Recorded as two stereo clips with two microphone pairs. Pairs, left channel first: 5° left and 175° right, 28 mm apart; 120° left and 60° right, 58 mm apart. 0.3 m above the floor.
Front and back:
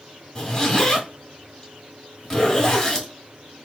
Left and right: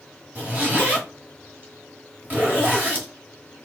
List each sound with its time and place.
0.3 s a zipper: 40° right, 1.2 m